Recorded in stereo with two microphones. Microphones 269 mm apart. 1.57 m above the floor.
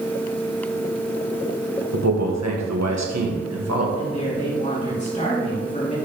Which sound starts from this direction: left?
A woman speaking, at 4.0 s.